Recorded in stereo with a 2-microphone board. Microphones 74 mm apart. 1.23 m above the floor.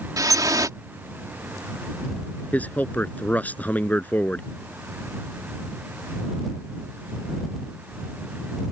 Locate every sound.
0.2 s dripping: 55° right (ahead or behind)
2.5 s a man speaking: 20° left (ahead or behind)